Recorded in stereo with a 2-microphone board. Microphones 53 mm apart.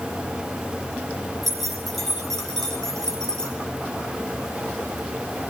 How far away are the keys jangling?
About 6 m.